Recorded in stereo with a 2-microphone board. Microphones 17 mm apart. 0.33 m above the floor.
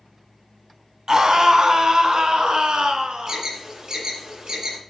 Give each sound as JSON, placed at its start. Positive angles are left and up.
{"t": 1.1, "sound": "a scream", "side_deg": -40, "distance_m": 2.0}
{"t": 3.3, "sound": "an alarm", "side_deg": -50, "distance_m": 7.5}